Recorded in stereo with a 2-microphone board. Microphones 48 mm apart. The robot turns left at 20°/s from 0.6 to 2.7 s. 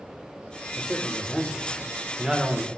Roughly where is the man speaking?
Ahead.